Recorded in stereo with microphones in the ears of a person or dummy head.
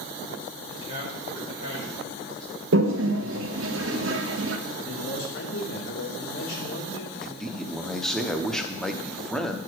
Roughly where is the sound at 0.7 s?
Left.